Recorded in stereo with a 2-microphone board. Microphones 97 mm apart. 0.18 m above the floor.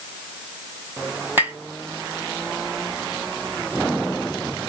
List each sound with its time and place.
1.4 s tapping: 25° right (ahead or behind), 1.0 m